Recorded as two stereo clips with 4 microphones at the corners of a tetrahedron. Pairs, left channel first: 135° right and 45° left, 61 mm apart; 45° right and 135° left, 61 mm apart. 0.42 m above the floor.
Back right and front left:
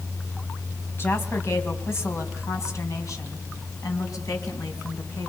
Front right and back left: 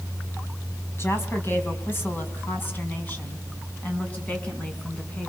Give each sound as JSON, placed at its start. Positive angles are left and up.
{"t": 1.0, "sound": "a woman speaking", "azimuth_deg": -90, "distance_m": 3.5}